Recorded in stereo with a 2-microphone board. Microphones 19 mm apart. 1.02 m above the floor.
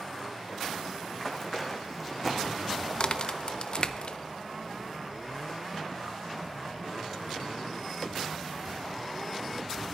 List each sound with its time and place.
1.1 s running footsteps: 20° left (ahead or behind), 3 m; by 3.9 s 50° right (ahead or behind), 2.5 m
3.0 s a crack: 45° left (ahead or behind), 0.6 m